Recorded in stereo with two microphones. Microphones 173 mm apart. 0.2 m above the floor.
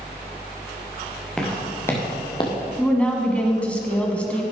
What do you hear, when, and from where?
1.4 s footsteps: 5° left (ahead or behind), 3 m; by 2.6 s 30° left (ahead or behind), 2 m
2.8 s a woman speaking: 5° left (ahead or behind), 1.5 m